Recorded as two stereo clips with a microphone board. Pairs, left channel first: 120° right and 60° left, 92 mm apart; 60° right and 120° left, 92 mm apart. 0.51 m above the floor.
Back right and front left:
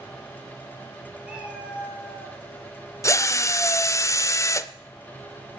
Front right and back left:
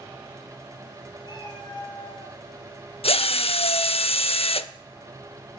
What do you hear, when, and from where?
1.2 s a cat meowing: 20° right, 3.5 m
3.0 s a drill: 60° right, 0.5 m